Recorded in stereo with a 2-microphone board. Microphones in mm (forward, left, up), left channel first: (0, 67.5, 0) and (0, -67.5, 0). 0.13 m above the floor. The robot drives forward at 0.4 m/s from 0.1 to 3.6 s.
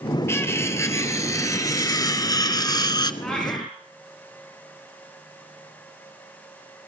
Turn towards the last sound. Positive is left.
turn(degrees=10)  # may be behind; listen again after turning